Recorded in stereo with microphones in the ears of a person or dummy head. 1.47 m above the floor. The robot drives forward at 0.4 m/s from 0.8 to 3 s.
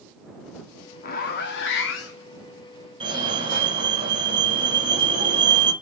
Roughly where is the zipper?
Left.